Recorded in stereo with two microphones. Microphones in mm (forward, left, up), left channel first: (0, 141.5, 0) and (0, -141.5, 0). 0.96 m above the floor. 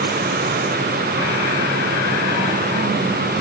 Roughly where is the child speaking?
I don't hear a child speaking.